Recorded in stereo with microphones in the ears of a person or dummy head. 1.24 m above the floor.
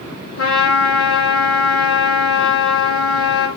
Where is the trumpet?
75° left (ahead or behind), 2.5 m.